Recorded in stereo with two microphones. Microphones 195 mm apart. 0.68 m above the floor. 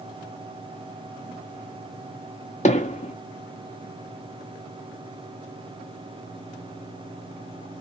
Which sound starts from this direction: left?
Hammering, at 2.6 s.